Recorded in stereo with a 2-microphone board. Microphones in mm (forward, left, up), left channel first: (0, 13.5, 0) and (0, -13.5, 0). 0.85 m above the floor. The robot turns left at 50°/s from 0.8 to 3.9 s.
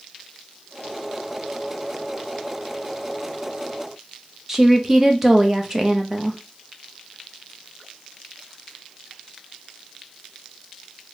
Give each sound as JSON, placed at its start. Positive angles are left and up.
{"t": 4.5, "sound": "a woman speaking", "side_deg": -15, "distance_m": 0.6}